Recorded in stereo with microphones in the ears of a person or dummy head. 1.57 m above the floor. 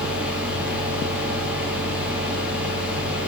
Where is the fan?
10° right (ahead or behind), 0.8 m.